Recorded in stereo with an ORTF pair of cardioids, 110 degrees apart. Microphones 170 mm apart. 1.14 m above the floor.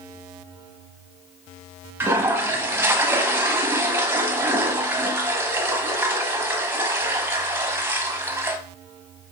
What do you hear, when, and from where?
2.0 s a toilet flushing: 15° right, 0.8 m